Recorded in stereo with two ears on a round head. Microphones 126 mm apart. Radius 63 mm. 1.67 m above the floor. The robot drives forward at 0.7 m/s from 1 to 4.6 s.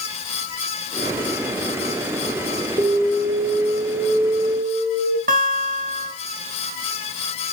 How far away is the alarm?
About 2.5 m.